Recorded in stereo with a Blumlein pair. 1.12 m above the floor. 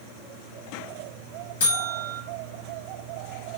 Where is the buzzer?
60° left, 1.0 m.